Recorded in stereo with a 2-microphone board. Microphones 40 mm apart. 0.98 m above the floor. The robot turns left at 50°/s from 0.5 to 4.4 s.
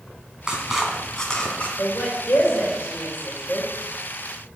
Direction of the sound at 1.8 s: 60° left (ahead or behind).